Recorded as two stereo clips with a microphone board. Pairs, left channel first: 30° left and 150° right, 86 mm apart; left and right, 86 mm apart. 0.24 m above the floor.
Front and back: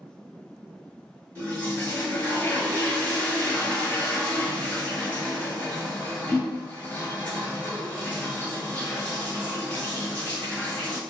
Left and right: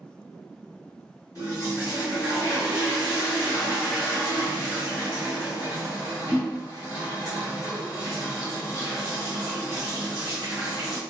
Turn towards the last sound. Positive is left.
turn(degrees=80)